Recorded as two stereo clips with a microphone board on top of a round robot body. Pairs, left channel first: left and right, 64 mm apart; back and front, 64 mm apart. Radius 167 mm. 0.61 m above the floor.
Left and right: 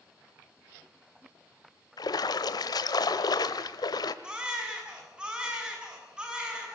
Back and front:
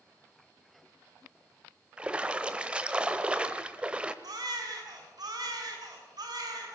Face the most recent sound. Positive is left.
turn(degrees=-15)